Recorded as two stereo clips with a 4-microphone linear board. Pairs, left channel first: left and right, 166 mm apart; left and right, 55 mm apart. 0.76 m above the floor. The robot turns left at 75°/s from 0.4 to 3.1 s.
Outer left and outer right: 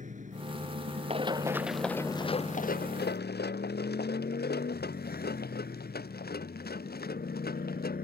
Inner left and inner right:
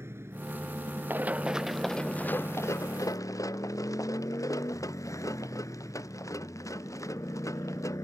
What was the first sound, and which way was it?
A motorcycle, 50° right.